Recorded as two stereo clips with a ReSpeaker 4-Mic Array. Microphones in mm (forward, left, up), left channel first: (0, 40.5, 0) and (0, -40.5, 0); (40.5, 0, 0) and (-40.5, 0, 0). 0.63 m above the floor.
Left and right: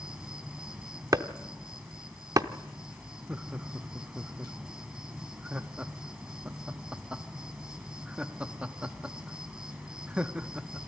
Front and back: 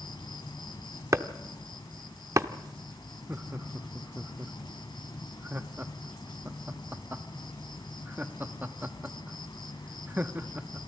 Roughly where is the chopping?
Behind right.